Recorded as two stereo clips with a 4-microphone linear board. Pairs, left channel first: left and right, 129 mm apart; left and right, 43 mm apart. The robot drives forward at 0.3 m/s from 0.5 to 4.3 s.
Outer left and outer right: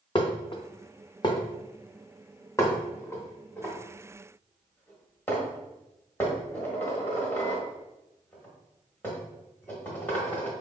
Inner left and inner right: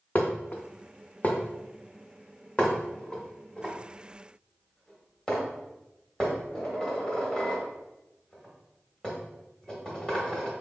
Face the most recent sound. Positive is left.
turn(degrees=15)  # may be behind; listen again after turning